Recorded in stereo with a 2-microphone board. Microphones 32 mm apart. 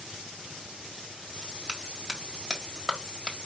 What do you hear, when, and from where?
1.7 s a clap: 20° right (ahead or behind), 1.4 m